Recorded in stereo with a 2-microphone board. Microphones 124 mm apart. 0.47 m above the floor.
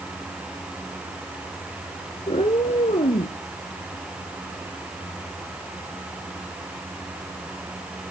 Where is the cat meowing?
55° left (ahead or behind), 1.2 m; by 3.4 s 85° left, 2 m.